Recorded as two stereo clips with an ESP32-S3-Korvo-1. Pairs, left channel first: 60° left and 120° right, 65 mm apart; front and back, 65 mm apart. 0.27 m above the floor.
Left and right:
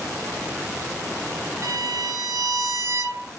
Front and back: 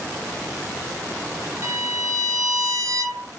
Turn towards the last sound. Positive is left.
turn(degrees=-150)